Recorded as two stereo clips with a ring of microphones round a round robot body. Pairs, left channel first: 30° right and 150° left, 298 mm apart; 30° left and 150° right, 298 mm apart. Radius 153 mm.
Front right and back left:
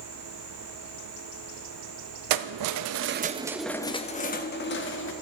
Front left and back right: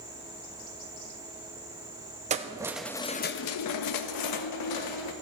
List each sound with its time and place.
2.3 s keys jangling: 140° left, 0.9 m; by 5.1 s 20° left, 1.6 m